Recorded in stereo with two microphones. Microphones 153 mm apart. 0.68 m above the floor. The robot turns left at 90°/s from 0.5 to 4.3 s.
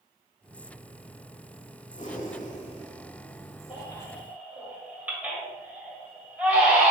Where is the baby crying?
45° left (ahead or behind), 1.9 m; by 6.9 s 10° right (ahead or behind), 1.9 m.